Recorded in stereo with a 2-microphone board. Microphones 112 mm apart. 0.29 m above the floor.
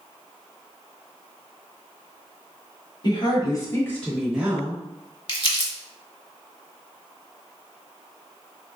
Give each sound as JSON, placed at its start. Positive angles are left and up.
{"t": 3.0, "sound": "a woman speaking", "side_deg": 45, "distance_m": 1.2}
{"t": 5.3, "sound": "crumpling", "side_deg": 50, "distance_m": 0.7}